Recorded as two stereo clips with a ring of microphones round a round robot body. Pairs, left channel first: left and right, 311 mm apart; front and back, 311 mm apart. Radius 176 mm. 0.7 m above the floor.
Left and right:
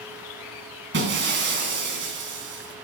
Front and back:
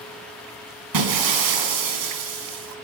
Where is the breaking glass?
150° right, 3.5 m.